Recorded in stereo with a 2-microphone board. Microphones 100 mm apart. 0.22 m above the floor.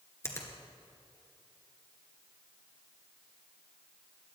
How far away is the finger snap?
About 2 m.